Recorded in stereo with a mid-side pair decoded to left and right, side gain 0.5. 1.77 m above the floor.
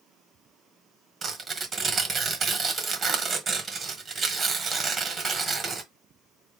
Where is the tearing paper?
35° right, 1.6 m.